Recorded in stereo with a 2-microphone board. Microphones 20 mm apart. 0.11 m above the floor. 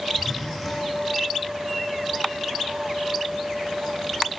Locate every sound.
0.1 s a zipper: 10° left (ahead or behind), 8 m